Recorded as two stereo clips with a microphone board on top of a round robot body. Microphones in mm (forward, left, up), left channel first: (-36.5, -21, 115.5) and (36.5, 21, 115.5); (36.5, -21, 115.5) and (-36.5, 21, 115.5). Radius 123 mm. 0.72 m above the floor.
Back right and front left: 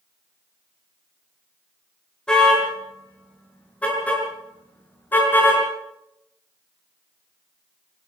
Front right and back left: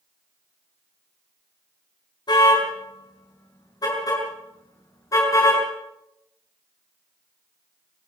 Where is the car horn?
70° right, 8.5 m; by 5.6 s 85° right, 7.5 m.